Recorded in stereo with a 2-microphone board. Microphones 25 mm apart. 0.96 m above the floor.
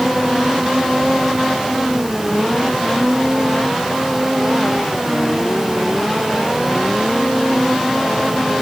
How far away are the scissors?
I don't hear scissors.